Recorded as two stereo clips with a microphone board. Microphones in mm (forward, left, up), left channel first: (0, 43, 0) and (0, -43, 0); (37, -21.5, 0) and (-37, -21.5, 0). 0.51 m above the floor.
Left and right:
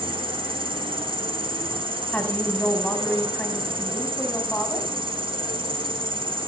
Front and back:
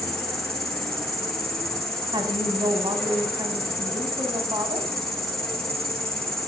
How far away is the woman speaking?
About 3 m.